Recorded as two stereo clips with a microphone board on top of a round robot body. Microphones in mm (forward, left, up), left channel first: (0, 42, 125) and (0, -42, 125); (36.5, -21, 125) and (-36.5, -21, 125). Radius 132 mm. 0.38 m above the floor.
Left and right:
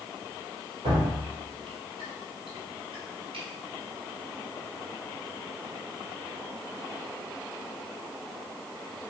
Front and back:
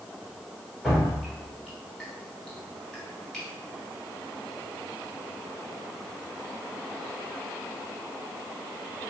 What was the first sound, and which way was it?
Dripping, 85° right.